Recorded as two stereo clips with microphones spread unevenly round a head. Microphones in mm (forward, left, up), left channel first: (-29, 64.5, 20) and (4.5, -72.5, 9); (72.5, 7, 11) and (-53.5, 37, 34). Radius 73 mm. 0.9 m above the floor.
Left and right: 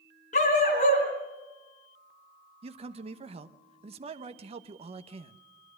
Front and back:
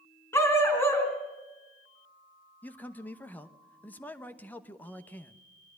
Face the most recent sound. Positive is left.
turn(degrees=-75)